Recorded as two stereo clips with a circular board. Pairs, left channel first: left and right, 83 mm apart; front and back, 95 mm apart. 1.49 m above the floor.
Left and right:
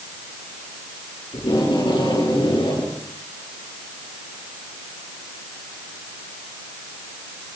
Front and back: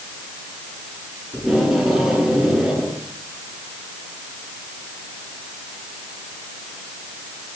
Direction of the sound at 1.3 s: 90° left.